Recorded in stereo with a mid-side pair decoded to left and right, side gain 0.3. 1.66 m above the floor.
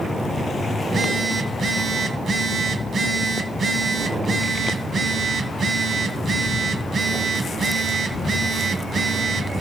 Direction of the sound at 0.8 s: 70° right.